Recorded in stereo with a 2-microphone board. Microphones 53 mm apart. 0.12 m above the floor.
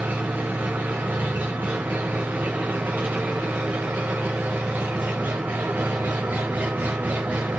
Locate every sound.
0.0 s an engine running: 30° right (ahead or behind), 4 m